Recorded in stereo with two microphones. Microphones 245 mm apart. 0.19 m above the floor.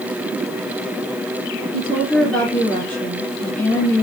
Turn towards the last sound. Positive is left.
turn(degrees=5)  # may be behind; listen again after turning